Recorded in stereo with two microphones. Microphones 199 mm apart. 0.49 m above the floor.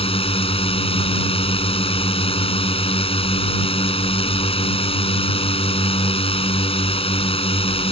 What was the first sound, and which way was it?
A drone, 30° left (ahead or behind).